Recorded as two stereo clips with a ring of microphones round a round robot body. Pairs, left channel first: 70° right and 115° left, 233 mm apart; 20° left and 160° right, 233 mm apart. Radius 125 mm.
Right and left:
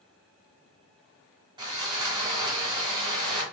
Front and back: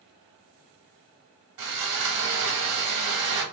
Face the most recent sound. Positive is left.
turn(degrees=-175)